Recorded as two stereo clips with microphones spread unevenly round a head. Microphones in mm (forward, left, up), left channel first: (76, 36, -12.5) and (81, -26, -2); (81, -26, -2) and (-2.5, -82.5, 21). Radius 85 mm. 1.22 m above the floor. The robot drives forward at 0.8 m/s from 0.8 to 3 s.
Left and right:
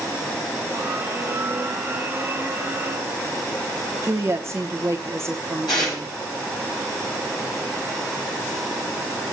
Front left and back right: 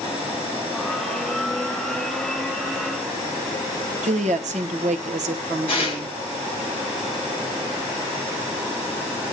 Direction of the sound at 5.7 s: 110° left.